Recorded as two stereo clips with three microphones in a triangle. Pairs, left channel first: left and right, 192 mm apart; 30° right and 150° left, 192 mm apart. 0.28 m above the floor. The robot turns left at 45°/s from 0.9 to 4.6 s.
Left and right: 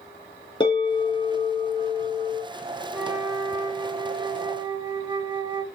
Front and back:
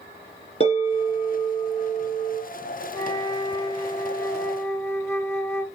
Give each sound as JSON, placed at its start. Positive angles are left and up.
{"t": 0.6, "sound": "a bell", "azimuth_deg": 20, "distance_m": 3.5}
{"t": 2.9, "sound": "a flute", "azimuth_deg": -15, "distance_m": 0.5}